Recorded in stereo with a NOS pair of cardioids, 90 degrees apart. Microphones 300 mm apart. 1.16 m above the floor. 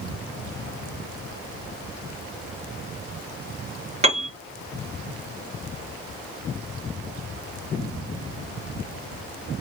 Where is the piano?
20° right, 1.2 m.